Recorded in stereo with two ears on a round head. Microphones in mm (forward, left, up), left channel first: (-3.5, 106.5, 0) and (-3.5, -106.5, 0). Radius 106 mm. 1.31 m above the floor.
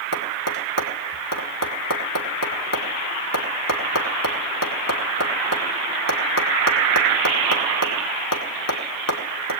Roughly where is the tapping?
Left.